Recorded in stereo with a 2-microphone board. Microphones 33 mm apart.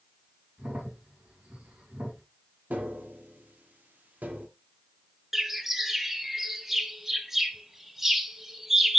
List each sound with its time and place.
0.6 s a crack: 50° right (ahead or behind), 3.5 m
2.7 s tapping: 60° right (ahead or behind), 1.4 m
5.3 s a bird: 10° right (ahead or behind), 0.7 m